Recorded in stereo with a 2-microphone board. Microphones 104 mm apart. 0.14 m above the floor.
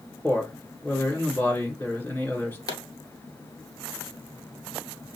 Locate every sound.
0.2 s a man speaking: 20° left (ahead or behind), 1.9 m
2.7 s a pop: 45° left (ahead or behind), 0.8 m